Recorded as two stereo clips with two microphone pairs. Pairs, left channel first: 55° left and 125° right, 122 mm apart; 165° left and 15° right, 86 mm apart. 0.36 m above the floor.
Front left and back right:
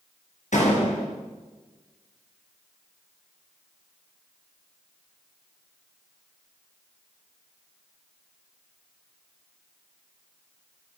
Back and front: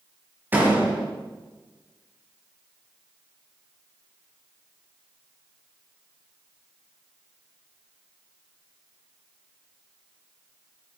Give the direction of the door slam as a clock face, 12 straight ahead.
10 o'clock.